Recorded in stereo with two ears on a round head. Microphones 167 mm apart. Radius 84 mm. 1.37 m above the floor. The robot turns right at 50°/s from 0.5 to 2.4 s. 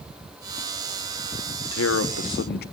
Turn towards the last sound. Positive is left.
turn(degrees=120)